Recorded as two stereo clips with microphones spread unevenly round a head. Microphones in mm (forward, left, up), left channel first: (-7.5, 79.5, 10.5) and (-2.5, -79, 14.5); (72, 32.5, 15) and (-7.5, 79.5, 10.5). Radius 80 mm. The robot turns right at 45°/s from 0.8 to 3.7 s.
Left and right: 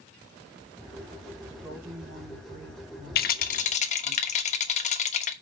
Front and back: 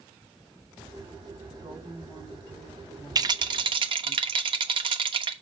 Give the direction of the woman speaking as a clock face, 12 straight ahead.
6 o'clock.